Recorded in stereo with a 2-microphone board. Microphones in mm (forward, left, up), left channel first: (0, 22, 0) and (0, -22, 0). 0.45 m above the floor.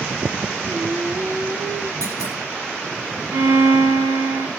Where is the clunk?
80° right, 5 m.